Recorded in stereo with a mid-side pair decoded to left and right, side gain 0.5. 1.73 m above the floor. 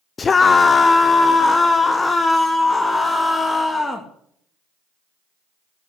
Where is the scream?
35° left, 0.7 m; by 4.1 s 20° left, 3 m.